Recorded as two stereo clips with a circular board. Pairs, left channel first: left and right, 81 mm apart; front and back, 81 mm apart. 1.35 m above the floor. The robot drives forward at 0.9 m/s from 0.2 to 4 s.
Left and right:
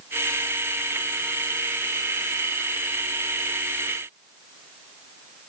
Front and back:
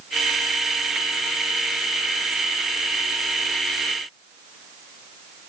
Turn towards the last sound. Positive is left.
No sound to turn to.